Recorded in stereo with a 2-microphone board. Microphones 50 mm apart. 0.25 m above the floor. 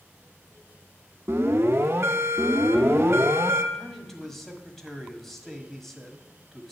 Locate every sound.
1.3 s an alarm: 60° right (ahead or behind), 1.2 m
3.7 s a man speaking: 5° left (ahead or behind), 1.6 m